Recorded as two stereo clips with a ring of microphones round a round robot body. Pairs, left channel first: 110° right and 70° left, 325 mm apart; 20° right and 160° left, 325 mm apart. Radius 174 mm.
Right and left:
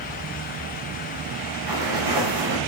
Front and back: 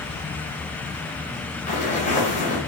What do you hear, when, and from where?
1.7 s footsteps: 45° left, 6.5 m